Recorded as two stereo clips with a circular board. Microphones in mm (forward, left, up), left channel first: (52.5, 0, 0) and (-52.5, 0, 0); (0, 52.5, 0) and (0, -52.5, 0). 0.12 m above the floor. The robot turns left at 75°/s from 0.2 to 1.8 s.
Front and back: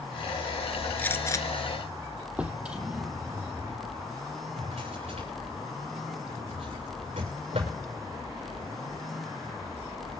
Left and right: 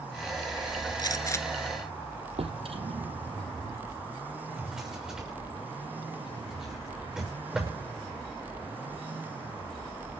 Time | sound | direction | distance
1.0 | a gunshot | 70° left | 0.8 m
2.4 | a drawer | 100° right | 2 m
4.6 | a drawer | 175° right | 6.5 m